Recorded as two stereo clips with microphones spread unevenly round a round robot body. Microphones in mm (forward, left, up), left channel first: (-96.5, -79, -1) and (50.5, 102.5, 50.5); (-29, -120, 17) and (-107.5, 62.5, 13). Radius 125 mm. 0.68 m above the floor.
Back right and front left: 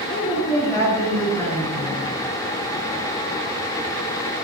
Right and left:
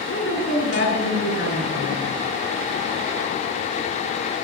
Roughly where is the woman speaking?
Ahead right.